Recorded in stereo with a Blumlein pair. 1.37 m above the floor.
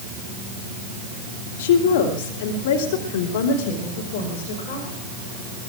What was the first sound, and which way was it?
A woman speaking, 50° left.